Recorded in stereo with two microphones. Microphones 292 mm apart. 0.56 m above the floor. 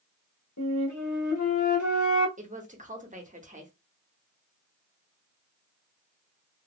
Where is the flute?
75° left (ahead or behind), 0.9 m.